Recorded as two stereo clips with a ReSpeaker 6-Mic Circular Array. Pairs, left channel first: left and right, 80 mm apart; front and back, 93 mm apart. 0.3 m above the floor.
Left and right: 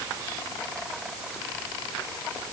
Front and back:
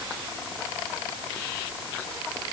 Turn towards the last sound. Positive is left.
No sound to turn to.